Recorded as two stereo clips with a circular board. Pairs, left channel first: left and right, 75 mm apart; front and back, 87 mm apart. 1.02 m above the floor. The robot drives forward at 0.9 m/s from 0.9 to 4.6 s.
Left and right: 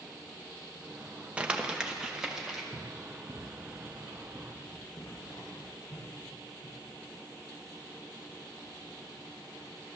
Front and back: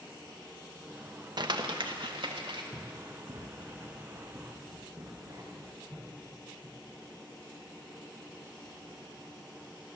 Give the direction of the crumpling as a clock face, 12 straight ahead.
5 o'clock.